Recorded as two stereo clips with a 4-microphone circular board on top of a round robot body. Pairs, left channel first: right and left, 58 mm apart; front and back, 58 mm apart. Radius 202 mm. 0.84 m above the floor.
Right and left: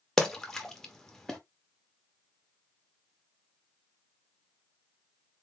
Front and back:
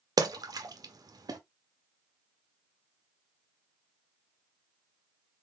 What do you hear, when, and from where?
0.2 s a splash: 175° right, 1.0 m